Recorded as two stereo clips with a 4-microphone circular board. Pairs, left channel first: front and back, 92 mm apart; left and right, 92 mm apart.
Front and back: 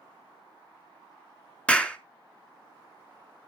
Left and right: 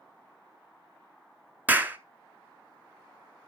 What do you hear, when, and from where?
1.7 s a clap: 60° right, 0.9 m